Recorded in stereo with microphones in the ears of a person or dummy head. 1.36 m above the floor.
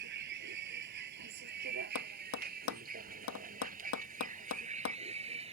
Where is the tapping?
80° left.